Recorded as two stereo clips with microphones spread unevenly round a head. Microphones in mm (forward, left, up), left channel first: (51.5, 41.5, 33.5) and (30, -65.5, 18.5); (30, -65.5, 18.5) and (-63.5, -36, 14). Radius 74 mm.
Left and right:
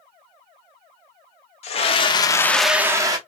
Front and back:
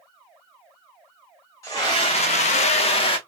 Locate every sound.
1.6 s a scream: 50° left, 1.2 m; by 3.2 s 45° right, 1.0 m